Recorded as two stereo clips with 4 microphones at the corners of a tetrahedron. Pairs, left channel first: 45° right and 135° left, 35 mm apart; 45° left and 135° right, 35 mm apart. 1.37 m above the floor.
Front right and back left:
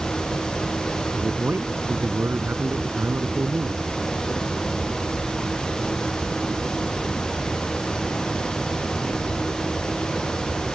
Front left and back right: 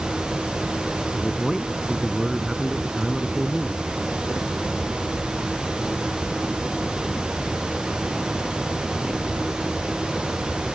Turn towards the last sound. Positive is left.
turn(degrees=145)